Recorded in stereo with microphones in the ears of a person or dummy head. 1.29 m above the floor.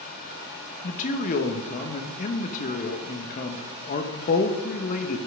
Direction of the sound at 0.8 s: 40° left (ahead or behind).